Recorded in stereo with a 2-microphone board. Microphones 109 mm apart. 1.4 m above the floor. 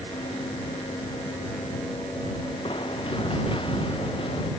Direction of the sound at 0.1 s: 55° left (ahead or behind).